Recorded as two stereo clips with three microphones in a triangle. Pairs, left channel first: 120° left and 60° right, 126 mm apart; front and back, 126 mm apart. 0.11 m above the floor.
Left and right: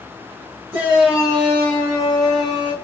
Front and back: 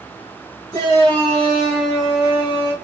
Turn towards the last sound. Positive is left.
turn(degrees=125)